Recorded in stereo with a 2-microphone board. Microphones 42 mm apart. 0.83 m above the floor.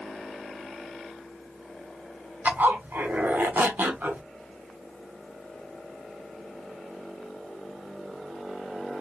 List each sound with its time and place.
2.5 s a zipper: 60° right (ahead or behind), 0.8 m